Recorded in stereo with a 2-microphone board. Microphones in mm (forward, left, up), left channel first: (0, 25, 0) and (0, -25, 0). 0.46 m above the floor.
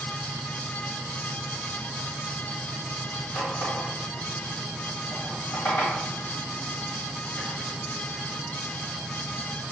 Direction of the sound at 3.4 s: 65° left (ahead or behind).